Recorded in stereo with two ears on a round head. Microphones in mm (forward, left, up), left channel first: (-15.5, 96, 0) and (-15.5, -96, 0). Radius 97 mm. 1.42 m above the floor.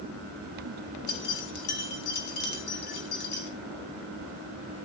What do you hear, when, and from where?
1.1 s keys jangling: 50° left (ahead or behind), 3.5 m